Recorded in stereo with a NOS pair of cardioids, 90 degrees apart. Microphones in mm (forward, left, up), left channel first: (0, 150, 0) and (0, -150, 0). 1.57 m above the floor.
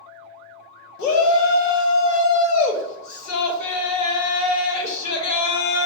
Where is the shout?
65° left, 0.9 m.